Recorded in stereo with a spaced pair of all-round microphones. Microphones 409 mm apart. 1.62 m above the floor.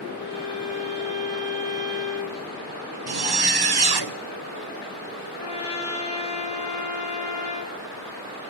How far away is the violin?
About 4 m.